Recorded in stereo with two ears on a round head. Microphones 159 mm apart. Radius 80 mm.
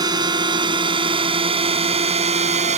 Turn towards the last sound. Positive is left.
turn(degrees=-40)  # may be behind; listen again after turning